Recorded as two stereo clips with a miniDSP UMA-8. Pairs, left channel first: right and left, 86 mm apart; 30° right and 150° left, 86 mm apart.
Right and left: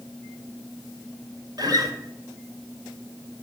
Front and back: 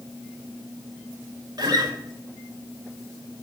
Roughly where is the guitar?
Behind left.